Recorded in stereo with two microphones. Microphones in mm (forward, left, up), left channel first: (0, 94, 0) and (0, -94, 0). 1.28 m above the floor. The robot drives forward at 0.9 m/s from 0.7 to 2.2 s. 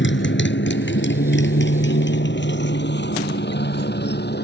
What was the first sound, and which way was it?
A motorcycle, 80° left.